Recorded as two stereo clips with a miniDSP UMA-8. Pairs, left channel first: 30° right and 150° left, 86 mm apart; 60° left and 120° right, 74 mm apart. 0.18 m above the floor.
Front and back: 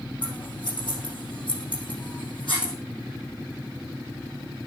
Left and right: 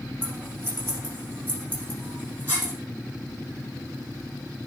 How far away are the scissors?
About 6.5 m.